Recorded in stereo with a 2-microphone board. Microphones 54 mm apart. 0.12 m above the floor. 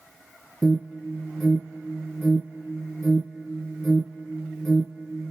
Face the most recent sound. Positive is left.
turn(degrees=5)  # may be behind; listen again after turning